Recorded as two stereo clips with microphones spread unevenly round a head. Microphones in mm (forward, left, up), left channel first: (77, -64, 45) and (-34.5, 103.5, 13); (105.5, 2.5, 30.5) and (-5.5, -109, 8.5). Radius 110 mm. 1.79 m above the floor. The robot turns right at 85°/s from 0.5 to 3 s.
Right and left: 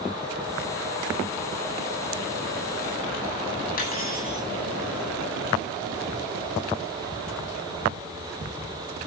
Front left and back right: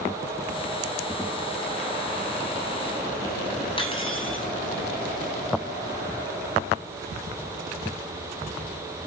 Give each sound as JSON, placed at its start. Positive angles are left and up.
{"t": 3.8, "sound": "cutlery clinking", "azimuth_deg": -10, "distance_m": 9.0}